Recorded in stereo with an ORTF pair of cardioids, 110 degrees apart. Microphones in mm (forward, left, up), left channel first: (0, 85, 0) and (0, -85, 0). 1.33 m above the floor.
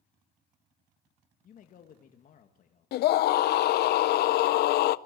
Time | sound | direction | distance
1.4 | a man speaking | 50° left | 2 m
2.9 | a scream | 65° left | 0.6 m